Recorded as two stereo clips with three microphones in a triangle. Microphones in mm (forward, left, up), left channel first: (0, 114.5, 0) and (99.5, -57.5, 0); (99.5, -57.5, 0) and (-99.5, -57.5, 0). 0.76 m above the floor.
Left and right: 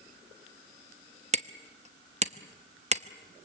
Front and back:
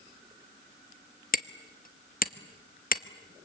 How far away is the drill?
No drill in this recording.